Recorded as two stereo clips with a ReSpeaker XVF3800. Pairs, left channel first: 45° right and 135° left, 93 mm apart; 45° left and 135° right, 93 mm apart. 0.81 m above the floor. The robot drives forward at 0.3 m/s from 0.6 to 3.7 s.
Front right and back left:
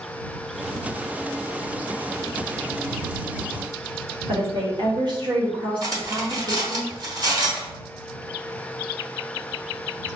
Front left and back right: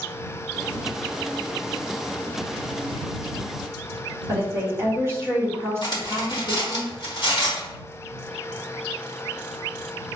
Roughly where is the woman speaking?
Behind.